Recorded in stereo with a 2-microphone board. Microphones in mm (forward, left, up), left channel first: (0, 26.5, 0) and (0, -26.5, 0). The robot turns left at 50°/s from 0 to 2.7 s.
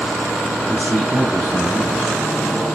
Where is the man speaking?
40° left, 3 m; by 2.2 s 35° right, 3 m.